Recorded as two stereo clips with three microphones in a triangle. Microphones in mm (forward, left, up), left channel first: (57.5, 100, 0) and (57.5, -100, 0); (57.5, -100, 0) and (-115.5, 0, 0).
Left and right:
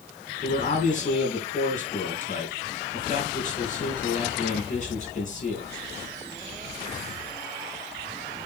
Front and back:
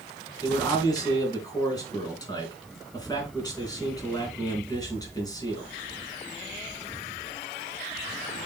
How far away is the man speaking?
About 3.5 m.